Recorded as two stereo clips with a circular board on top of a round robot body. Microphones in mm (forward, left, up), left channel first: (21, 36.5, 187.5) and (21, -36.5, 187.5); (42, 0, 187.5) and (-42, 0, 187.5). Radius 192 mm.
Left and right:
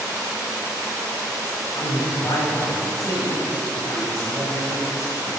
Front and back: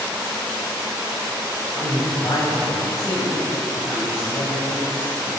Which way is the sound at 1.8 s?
50° left.